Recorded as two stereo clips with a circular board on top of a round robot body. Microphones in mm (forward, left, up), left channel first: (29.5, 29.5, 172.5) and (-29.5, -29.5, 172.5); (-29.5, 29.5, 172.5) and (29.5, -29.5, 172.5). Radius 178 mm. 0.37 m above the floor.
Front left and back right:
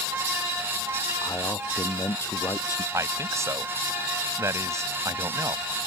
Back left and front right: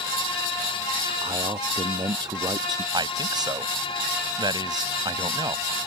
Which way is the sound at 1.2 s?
15° right.